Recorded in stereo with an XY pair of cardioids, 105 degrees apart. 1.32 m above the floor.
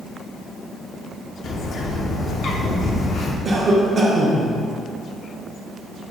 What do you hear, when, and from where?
1.4 s a bird: 60° left, 0.5 m
3.5 s a cough: 45° right, 0.9 m